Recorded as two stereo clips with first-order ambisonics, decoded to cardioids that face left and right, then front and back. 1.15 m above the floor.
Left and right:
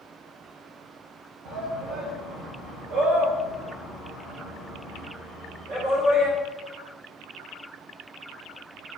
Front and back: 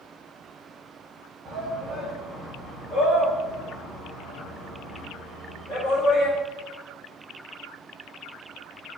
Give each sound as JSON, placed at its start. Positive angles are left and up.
{"t": 1.4, "sound": "a shout", "azimuth_deg": -120, "distance_m": 1.1}